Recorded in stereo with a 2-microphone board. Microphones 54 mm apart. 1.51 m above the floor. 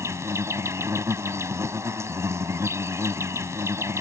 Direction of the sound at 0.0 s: 65° right (ahead or behind).